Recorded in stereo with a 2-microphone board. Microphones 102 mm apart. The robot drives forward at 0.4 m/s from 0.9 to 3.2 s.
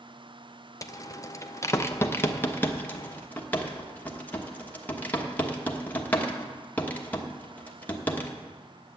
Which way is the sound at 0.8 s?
30° left (ahead or behind).